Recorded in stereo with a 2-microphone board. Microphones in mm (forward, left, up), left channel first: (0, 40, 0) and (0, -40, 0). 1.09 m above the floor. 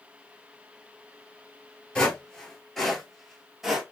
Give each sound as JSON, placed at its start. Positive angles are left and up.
{"t": 1.9, "sound": "footsteps", "side_deg": 10, "distance_m": 1.1}